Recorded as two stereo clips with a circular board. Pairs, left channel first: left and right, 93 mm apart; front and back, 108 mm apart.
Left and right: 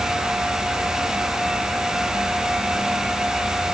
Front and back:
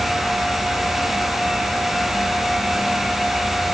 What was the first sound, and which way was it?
Only background noise.